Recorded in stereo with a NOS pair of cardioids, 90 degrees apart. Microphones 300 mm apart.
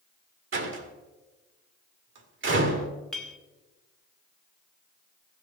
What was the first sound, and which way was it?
A door slam, 40° right.